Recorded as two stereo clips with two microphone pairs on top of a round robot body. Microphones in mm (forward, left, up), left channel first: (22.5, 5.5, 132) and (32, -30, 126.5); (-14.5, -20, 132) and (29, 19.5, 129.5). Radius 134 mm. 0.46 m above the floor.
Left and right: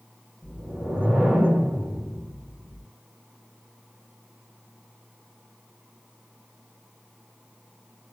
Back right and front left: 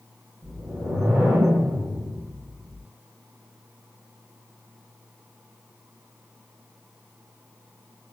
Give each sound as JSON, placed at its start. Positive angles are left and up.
{"t": 0.4, "sound": "a whoosh", "azimuth_deg": -30, "distance_m": 1.9}